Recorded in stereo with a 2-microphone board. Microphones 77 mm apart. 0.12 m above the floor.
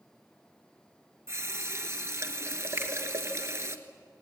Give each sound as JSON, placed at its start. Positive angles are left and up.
{"t": 1.3, "sound": "a running tap", "side_deg": -40, "distance_m": 1.2}
{"t": 2.8, "sound": "a finger snap", "side_deg": -30, "distance_m": 2.5}